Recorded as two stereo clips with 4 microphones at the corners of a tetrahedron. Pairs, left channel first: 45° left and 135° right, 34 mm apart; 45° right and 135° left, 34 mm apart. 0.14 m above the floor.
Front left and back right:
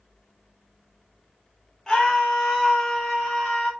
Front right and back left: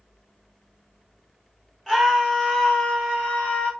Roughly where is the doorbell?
I don't hear a doorbell.